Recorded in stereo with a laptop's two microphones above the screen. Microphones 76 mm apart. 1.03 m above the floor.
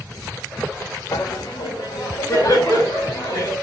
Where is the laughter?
60° left (ahead or behind), 0.5 m; by 3.5 s 65° left (ahead or behind), 2.5 m.